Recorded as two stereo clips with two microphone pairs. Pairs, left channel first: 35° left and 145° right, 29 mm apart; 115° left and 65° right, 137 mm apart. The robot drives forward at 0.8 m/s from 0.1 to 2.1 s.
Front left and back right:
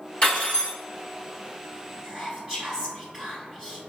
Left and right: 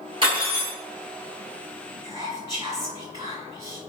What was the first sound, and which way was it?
Cutlery clinking, 10° right.